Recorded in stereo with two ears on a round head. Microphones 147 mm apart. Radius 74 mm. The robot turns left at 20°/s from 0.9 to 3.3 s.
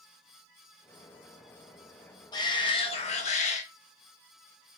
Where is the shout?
25° left (ahead or behind), 1.2 m; by 3.6 s 45° left (ahead or behind), 1.2 m.